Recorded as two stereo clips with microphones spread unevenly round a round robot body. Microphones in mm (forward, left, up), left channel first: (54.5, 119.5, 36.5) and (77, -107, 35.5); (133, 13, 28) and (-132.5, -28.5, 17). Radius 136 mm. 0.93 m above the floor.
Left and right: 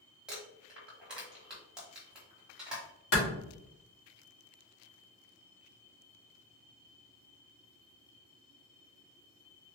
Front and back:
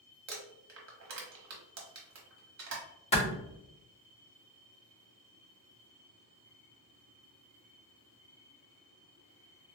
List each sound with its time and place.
0.3 s crumpling: 170° right, 1.1 m
3.1 s a clap: 75° left, 1.6 m